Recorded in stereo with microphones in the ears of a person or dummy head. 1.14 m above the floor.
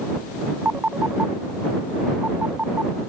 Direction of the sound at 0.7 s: 5° right (ahead or behind).